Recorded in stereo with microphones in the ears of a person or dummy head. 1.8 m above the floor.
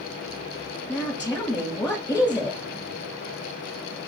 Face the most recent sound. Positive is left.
turn(degrees=10)  # may be behind; listen again after turning